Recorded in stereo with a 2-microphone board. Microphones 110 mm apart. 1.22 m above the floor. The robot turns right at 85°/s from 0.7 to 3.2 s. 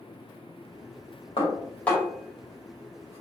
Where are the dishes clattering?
55° left (ahead or behind), 1.8 m; by 3.2 s 75° right (ahead or behind), 1.8 m.